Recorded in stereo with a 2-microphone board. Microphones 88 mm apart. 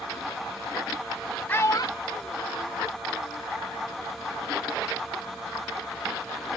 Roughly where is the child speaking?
Centre.